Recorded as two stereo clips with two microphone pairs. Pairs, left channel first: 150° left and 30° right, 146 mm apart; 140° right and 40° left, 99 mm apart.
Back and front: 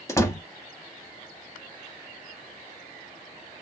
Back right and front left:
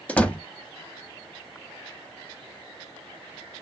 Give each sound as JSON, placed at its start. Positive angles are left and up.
{"t": 0.1, "sound": "a door slam", "azimuth_deg": 175, "distance_m": 0.7}